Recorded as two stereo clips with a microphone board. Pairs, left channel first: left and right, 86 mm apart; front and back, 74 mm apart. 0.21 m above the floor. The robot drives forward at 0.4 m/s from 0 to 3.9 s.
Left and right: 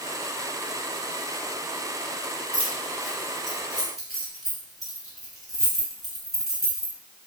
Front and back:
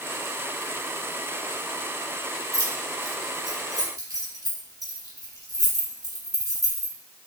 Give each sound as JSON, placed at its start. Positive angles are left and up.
{"t": 2.5, "sound": "keys jangling", "azimuth_deg": -175, "distance_m": 1.5}